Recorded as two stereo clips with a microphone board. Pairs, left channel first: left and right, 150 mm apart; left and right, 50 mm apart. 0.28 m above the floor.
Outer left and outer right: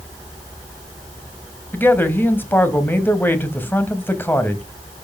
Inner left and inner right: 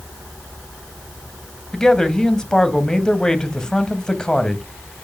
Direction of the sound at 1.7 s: 15° left (ahead or behind).